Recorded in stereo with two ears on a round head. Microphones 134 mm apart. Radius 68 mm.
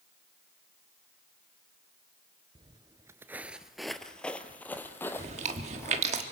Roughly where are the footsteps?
Right.